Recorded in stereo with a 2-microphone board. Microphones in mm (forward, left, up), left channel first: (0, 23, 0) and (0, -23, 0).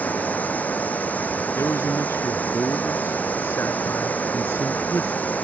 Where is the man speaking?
75° left (ahead or behind).